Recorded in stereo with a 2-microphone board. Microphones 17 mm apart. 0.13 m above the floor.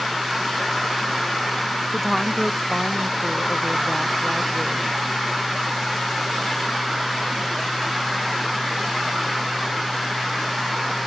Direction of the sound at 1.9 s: 5° right (ahead or behind).